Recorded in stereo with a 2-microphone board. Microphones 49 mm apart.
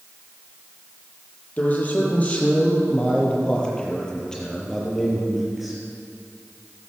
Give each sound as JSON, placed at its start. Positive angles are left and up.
{"t": 1.6, "sound": "a man speaking", "side_deg": 30, "distance_m": 6.5}